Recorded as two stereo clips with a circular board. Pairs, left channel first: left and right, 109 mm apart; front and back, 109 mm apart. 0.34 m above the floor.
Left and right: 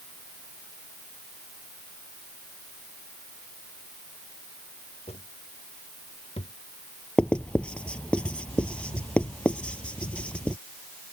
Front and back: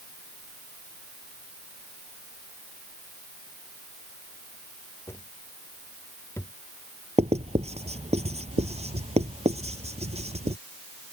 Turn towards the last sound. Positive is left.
turn(degrees=170)